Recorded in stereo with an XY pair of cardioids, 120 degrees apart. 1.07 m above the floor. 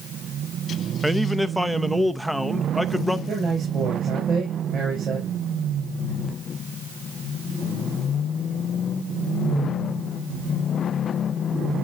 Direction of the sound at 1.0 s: Straight ahead.